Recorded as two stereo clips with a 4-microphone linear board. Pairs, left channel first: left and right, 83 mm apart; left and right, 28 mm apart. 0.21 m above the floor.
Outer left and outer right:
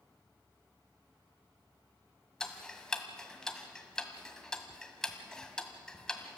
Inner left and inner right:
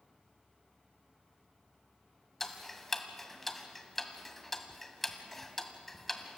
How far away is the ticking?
About 1.6 m.